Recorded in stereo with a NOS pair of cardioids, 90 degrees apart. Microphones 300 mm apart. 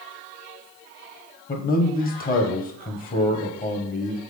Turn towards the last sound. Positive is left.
turn(degrees=30)